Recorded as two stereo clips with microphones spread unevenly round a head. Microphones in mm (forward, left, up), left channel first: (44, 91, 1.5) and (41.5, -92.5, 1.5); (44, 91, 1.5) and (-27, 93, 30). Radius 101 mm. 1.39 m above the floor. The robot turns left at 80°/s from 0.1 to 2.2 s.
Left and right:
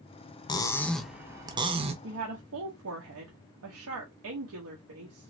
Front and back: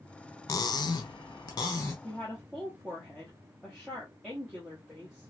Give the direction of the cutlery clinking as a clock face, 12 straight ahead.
11 o'clock.